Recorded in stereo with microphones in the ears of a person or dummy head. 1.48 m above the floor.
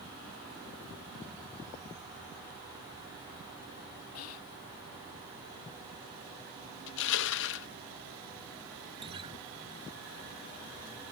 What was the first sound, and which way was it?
Whispering, 80° left.